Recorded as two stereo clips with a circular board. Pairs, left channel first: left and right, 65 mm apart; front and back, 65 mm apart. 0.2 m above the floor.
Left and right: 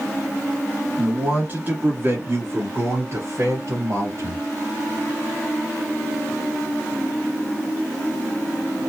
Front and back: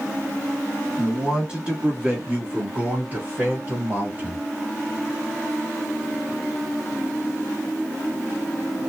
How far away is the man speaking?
About 1.4 m.